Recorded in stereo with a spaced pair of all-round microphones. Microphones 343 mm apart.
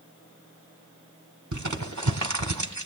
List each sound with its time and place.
1.5 s crumpling: 65° right (ahead or behind), 1.3 m